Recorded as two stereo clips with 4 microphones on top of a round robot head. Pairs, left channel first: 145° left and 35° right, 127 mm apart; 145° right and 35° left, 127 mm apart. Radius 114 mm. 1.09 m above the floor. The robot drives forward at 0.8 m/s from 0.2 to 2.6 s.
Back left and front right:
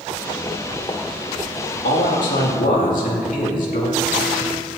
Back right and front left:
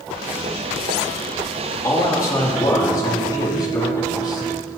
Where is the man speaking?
150° left, 2.5 m; by 4.5 s 155° left, 3 m.